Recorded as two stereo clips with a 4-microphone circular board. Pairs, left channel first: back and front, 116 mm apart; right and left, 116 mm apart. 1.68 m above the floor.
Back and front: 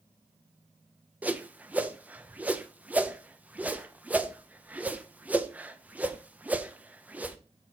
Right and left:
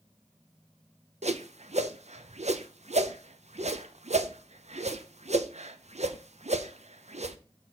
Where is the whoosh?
75° left, 0.6 m.